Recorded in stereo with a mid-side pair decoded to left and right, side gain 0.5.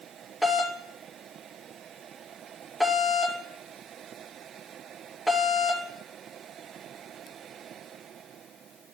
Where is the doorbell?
10° right, 2.5 m.